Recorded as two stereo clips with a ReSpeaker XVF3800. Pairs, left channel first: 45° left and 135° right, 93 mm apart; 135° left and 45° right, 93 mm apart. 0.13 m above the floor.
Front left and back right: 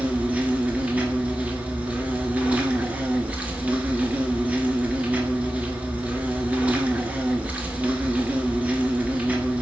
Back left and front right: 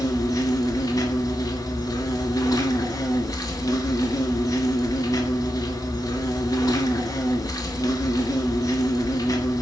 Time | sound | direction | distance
0.0 | an insect | 155° left | 0.8 m